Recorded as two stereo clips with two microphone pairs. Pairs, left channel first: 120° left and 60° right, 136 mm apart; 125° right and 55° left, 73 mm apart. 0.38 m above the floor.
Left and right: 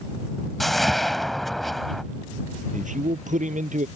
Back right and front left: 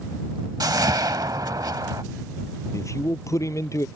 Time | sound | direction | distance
0.6 | a whoosh | 30° left | ?
2.7 | a man speaking | 85° right | ?